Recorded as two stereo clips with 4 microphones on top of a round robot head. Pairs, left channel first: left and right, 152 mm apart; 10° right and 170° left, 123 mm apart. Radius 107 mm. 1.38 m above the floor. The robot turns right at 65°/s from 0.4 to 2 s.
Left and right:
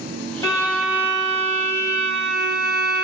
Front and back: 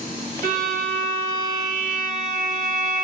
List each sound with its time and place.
0.4 s a violin: 155° left, 1.3 m; by 3.0 s 100° right, 1.3 m